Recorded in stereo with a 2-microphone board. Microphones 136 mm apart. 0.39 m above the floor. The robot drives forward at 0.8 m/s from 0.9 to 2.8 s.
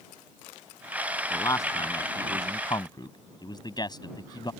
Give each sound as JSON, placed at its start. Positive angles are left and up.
{"t": 1.3, "sound": "a man speaking", "side_deg": 25}